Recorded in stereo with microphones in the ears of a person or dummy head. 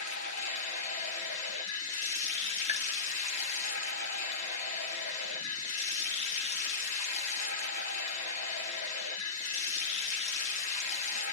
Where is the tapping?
40° left (ahead or behind), 0.6 m.